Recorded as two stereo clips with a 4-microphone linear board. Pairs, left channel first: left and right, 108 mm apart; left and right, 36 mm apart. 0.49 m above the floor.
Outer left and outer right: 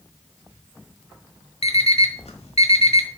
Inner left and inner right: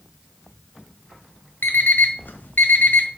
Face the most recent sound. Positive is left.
turn(degrees=75)  # may be behind; listen again after turning